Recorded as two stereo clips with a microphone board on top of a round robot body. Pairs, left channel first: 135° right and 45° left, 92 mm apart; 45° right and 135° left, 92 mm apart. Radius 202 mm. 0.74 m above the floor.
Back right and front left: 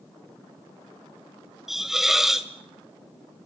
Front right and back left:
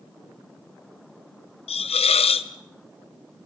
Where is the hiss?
40° right, 0.6 m.